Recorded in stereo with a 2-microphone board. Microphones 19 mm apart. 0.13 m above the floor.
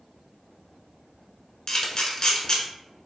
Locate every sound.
1.7 s a camera shutter: 40° left (ahead or behind), 0.7 m